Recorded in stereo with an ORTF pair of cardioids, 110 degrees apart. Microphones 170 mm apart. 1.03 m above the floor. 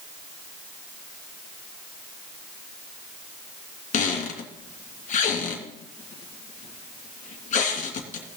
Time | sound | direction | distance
3.9 | a squeak | 50° left | 3 m